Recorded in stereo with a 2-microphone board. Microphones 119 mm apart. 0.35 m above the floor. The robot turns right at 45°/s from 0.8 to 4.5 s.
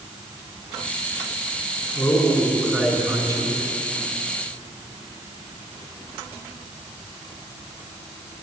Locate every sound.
1.9 s a man speaking: 150° left, 3 m; by 3.6 s 135° right, 3 m